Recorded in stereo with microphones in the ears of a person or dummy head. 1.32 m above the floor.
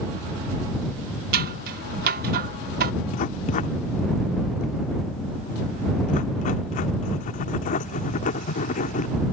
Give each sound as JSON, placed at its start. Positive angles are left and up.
{"t": 1.3, "sound": "scissors", "side_deg": -50}
{"t": 3.1, "sound": "writing", "side_deg": 40}